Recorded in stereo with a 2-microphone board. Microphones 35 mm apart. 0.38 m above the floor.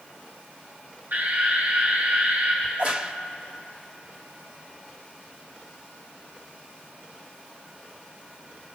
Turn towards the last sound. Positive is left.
turn(degrees=-40)  # may be behind; listen again after turning